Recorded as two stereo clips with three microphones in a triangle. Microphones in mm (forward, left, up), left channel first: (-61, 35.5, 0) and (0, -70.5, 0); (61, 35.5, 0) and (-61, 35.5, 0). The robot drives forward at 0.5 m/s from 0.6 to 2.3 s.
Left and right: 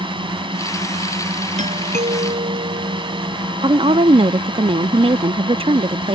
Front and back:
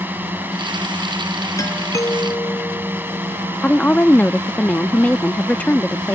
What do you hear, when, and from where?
0.0 s a drone: 105° right
1.6 s a doorbell: 65° right
3.6 s a woman speaking: 75° right